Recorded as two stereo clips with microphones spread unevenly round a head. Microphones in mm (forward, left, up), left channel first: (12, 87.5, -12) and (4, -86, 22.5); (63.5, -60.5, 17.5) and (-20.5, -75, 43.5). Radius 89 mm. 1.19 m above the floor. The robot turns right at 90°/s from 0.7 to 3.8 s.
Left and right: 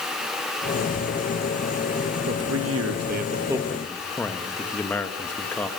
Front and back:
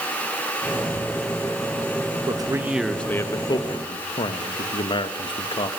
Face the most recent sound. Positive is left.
turn(degrees=10)